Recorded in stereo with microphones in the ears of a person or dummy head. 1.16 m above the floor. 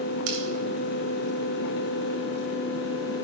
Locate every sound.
0.3 s scissors: 75° right (ahead or behind), 2.5 m